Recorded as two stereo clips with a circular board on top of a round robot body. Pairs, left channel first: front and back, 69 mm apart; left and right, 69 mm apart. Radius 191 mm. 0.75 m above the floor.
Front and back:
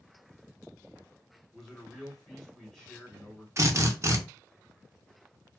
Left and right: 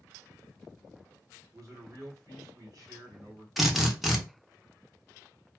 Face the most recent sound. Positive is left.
turn(degrees=-175)